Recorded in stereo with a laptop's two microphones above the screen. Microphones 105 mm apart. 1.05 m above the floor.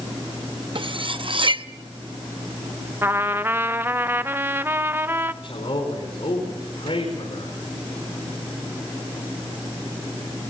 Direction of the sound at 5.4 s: 65° left (ahead or behind).